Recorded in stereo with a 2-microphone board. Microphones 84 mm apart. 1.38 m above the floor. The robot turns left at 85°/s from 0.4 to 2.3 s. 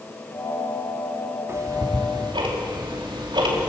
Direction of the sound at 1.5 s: 35° right (ahead or behind).